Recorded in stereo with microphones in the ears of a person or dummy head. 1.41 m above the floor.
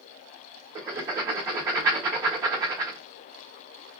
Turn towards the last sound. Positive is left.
turn(degrees=-15)  # may be behind; listen again after turning